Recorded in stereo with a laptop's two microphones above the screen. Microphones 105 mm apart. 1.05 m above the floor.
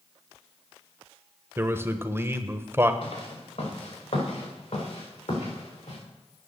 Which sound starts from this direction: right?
A man speaking, at 1.6 s.